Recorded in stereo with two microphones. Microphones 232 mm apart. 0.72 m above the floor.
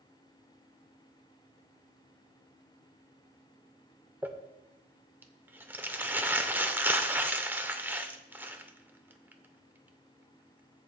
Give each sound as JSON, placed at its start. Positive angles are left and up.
{"t": 4.2, "sound": "crumpling", "side_deg": -10, "distance_m": 0.7}